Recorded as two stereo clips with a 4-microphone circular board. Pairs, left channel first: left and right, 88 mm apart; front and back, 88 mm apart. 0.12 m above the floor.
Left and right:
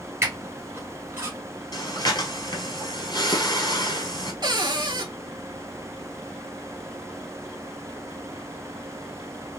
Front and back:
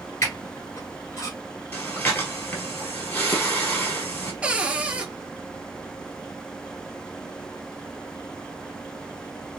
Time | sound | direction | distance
0.2 | a squeak | 45° right | 1.6 m
1.7 | breathing | 65° left | 1.3 m
4.4 | a cupboard door | 105° right | 0.7 m